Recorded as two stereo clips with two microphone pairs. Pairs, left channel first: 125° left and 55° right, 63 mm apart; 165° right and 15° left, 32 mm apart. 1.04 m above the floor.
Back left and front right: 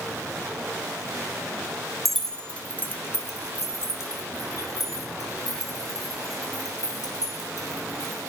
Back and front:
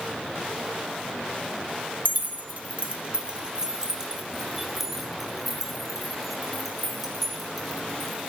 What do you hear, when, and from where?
2.0 s keys jangling: 35° left, 1.1 m; by 8.3 s 115° left, 5 m